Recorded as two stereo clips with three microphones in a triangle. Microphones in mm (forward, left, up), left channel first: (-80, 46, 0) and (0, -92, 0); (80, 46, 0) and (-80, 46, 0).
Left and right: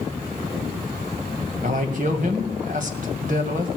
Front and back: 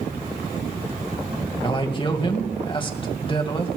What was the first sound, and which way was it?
A man speaking, 50° right.